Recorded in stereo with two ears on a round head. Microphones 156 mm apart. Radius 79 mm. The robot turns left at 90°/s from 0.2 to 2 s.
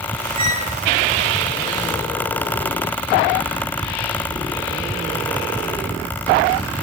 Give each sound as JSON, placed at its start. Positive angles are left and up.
{"t": 0.4, "sound": "a squeak", "azimuth_deg": -145, "distance_m": 10.0}